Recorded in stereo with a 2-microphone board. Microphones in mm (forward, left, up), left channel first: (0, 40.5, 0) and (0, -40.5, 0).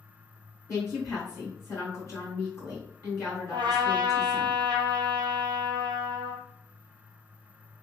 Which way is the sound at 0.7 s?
35° left (ahead or behind).